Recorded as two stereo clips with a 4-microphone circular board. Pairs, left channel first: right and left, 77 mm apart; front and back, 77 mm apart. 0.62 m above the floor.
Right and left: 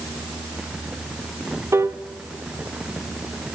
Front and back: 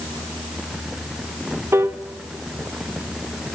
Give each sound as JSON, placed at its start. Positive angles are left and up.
{"t": 1.7, "sound": "a piano", "azimuth_deg": 135, "distance_m": 1.1}